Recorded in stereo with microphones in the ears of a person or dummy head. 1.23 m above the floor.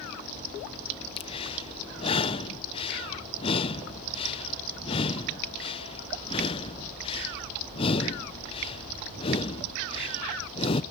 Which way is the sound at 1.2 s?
30° left (ahead or behind).